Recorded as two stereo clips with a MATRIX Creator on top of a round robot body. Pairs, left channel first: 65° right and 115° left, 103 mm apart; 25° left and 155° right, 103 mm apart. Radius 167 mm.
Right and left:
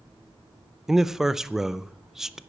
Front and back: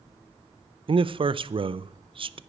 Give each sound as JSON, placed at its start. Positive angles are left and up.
{"t": 0.9, "sound": "a man speaking", "azimuth_deg": -160, "distance_m": 0.7}